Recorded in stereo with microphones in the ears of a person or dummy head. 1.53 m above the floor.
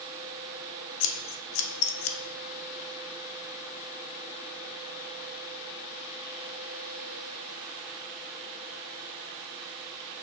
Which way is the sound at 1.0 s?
70° left (ahead or behind).